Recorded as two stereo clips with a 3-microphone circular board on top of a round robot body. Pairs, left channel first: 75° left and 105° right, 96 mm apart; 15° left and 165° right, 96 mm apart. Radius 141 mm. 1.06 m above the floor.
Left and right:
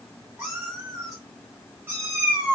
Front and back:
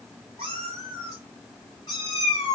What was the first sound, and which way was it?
A cat meowing, 175° right.